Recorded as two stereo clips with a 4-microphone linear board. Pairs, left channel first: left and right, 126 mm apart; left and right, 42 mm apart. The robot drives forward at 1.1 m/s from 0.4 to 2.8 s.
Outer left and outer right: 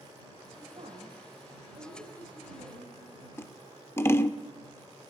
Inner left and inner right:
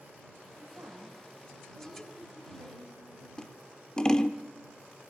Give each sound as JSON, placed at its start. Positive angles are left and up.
{"t": 0.6, "sound": "a woman speaking", "side_deg": -55, "distance_m": 2.5}
{"t": 3.4, "sound": "scissors", "side_deg": 20, "distance_m": 0.6}